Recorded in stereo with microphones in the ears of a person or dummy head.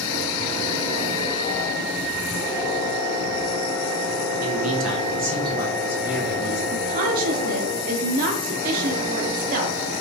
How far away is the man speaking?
About 1.0 m.